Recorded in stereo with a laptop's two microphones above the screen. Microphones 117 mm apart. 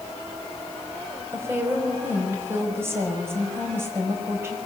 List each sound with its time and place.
1.3 s a woman speaking: 20° right (ahead or behind), 5.5 m